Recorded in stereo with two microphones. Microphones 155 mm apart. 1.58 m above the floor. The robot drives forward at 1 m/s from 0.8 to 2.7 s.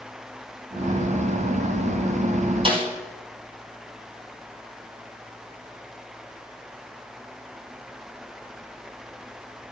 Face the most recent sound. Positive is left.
turn(degrees=-35)  # may be behind; listen again after turning